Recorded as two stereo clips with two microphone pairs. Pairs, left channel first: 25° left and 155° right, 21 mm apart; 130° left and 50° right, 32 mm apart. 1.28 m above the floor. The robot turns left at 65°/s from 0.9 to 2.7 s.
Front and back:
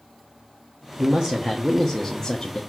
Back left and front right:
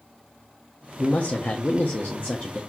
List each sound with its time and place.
1.0 s a man speaking: straight behind, 1.0 m; by 2.6 s 75° left, 1.0 m